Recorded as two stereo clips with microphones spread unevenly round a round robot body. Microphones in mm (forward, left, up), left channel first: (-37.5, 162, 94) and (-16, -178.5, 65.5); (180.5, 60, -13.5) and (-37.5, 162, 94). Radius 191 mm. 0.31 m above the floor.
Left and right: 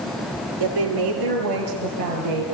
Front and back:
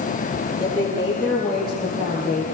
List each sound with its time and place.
0.6 s a woman speaking: 110° right, 6.5 m; by 2.4 s 115° right, 6.5 m